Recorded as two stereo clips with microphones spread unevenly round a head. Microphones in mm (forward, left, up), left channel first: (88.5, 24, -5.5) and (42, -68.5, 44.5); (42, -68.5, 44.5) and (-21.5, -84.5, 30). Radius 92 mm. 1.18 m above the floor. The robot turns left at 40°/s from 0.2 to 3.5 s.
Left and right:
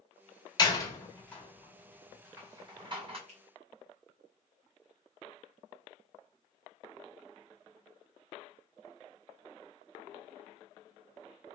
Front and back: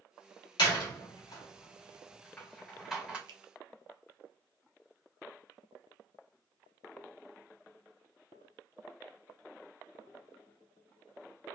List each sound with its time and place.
0.6 s a door slam: 10° left, 1.9 m; by 3.2 s 90° right, 1.9 m
3.3 s a finger snap: 170° right, 0.7 m; by 3.4 s 175° right, 0.7 m